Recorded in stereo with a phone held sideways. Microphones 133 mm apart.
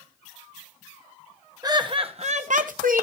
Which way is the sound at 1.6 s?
30° right (ahead or behind).